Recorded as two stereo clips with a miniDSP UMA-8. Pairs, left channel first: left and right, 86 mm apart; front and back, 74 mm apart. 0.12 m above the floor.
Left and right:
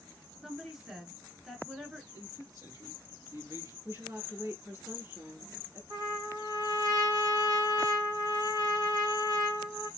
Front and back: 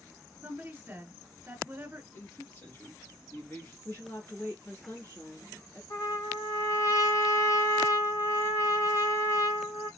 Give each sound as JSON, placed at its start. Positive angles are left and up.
{"t": 0.4, "sound": "a woman speaking", "azimuth_deg": -170, "distance_m": 1.2}
{"t": 2.1, "sound": "a man speaking", "azimuth_deg": -55, "distance_m": 2.5}
{"t": 3.9, "sound": "a woman speaking", "azimuth_deg": -45, "distance_m": 2.0}
{"t": 5.9, "sound": "a trumpet", "azimuth_deg": -55, "distance_m": 3.0}